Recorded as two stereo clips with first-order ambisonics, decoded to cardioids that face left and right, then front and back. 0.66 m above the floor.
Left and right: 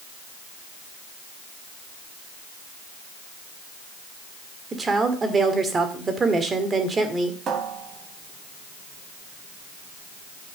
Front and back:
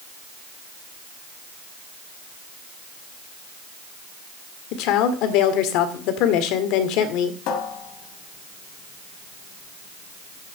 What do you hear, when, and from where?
4.7 s a woman speaking: 20° right, 1.8 m
7.5 s a cupboard door: 30° right, 2 m